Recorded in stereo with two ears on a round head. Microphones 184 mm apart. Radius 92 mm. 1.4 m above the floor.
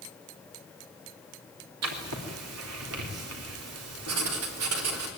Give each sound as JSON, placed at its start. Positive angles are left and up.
{"t": 1.8, "sound": "writing", "side_deg": -85, "distance_m": 3.5}